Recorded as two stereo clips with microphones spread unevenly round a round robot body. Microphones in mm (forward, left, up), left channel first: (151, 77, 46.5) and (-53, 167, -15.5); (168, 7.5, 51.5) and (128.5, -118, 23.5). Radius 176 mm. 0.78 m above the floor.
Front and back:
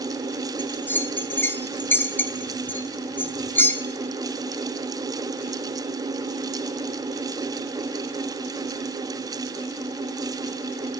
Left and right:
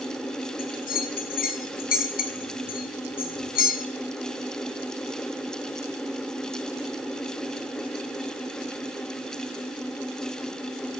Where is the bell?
65° left, 0.7 m.